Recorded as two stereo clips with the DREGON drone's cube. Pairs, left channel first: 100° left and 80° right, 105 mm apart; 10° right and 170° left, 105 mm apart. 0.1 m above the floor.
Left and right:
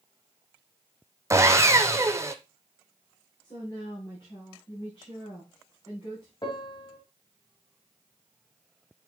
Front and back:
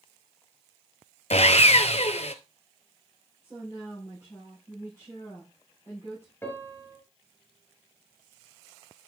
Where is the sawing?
15° right, 0.7 m.